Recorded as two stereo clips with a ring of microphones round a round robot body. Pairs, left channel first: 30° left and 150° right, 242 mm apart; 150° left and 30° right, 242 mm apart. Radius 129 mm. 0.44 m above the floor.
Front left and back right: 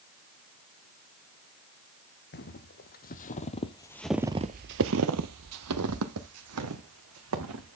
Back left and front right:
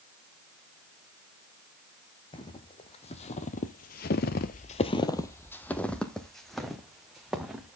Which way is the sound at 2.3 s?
80° left.